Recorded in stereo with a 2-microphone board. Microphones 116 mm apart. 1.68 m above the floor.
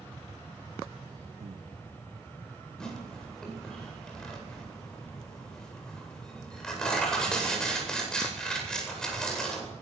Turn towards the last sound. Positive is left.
turn(degrees=5)  # may be behind; listen again after turning